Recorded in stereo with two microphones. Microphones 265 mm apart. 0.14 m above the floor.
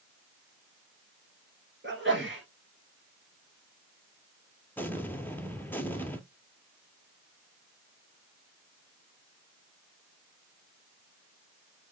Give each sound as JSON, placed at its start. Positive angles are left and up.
{"t": 1.8, "sound": "a sneeze", "side_deg": -45, "distance_m": 2.0}
{"t": 4.8, "sound": "an explosion", "side_deg": 10, "distance_m": 0.7}